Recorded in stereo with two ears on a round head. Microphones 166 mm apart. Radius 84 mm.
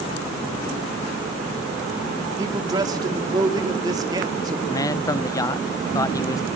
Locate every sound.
2.4 s a man speaking: 20° right (ahead or behind), 2.5 m
4.7 s a man speaking: 20° left (ahead or behind), 0.6 m